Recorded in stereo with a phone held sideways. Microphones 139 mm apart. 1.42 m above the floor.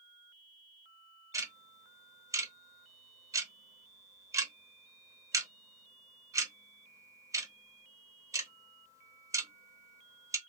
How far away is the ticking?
About 0.8 m.